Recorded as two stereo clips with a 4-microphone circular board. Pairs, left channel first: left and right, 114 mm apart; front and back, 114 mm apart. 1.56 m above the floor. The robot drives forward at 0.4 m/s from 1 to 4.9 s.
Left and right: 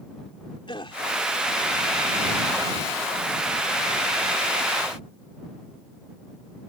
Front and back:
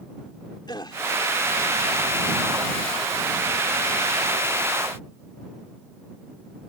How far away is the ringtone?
No ringtone in this recording.